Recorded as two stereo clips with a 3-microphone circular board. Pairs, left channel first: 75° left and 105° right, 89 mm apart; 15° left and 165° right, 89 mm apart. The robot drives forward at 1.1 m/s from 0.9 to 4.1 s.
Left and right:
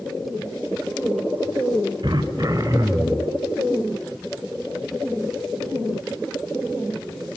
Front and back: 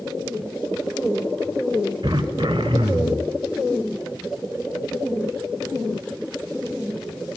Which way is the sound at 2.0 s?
135° right.